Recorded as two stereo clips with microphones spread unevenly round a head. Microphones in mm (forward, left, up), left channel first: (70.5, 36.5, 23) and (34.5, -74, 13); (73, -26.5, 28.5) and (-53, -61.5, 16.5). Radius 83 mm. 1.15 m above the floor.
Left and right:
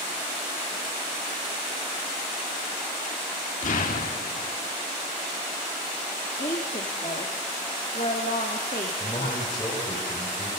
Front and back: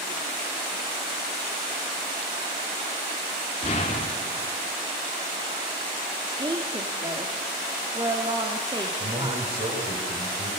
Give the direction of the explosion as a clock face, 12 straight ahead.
10 o'clock.